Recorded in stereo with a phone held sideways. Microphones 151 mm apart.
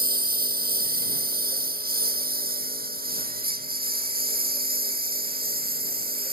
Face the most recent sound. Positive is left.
turn(degrees=-85)